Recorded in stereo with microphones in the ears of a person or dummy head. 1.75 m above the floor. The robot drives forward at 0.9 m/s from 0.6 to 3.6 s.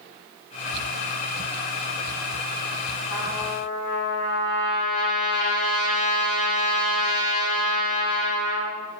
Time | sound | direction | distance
3.1 | a trumpet | 60° left (ahead or behind) | 2.5 m